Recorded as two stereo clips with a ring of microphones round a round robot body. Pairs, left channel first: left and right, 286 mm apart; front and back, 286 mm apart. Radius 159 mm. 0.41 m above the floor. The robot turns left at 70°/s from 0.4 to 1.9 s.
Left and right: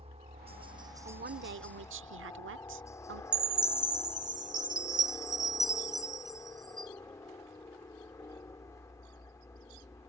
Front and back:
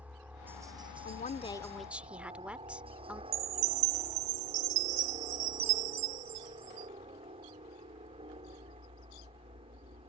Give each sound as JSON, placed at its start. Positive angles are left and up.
{"t": 0.0, "sound": "a helicopter", "azimuth_deg": -105}
{"t": 1.1, "sound": "a woman speaking", "azimuth_deg": -35}
{"t": 3.3, "sound": "a chime", "azimuth_deg": -165}